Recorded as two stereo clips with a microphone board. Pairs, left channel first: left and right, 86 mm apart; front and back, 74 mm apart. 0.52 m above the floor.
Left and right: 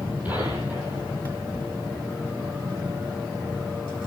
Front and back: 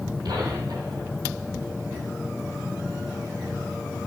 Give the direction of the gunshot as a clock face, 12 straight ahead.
5 o'clock.